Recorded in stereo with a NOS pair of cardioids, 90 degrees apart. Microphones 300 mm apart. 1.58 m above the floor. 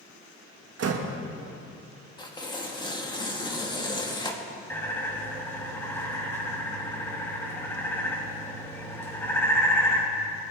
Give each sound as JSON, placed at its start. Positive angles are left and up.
{"t": 0.8, "sound": "a door slam", "azimuth_deg": -60, "distance_m": 1.7}
{"t": 2.2, "sound": "tearing paper", "azimuth_deg": 15, "distance_m": 2.0}
{"t": 4.7, "sound": "a bird", "azimuth_deg": 10, "distance_m": 3.0}